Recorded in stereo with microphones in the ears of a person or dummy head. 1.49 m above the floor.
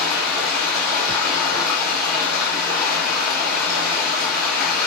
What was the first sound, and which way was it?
Running water, 5° left (ahead or behind).